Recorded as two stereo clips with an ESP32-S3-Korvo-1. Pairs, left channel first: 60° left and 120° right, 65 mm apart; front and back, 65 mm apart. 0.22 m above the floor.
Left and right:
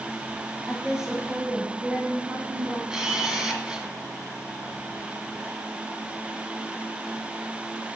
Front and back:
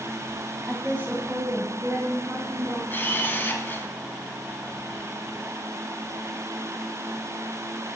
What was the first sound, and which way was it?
A woman speaking, 155° left.